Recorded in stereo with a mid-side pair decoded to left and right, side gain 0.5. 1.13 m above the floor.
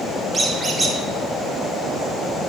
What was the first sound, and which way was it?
A squeak, 25° right.